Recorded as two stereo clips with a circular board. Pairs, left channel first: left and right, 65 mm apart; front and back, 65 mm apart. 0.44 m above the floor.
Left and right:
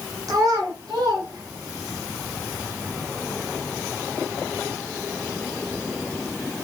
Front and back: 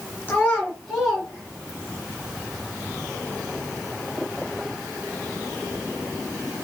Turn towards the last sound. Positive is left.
turn(degrees=-115)